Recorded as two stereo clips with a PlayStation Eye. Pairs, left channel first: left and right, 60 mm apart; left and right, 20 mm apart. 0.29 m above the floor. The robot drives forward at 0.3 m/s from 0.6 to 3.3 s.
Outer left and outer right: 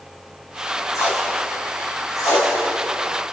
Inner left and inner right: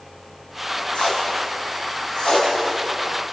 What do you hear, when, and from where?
0.9 s tape being pulled: 70° left (ahead or behind), 8 m; by 2.5 s 65° left (ahead or behind), 8.5 m